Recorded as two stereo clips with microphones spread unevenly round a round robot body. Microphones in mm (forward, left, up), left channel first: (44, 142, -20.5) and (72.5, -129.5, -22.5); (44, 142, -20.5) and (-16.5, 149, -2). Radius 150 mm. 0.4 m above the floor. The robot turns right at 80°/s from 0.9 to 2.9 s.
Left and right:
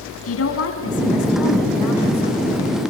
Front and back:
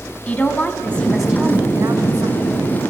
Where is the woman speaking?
55° left, 4 m; by 2.8 s 150° right, 4 m.